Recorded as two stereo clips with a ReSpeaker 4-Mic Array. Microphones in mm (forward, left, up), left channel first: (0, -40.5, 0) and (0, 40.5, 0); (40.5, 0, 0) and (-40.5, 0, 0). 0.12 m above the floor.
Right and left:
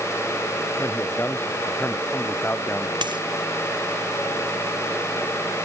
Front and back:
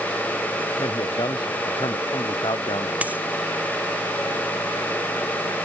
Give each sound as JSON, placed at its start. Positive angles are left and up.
{"t": 0.8, "sound": "a man speaking", "azimuth_deg": -25}
{"t": 3.0, "sound": "a dropped coin", "azimuth_deg": 110}